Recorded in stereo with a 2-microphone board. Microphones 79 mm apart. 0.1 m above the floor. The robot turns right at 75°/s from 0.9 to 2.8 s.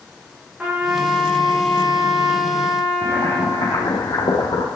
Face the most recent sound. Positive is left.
turn(degrees=60)  # may be behind; listen again after turning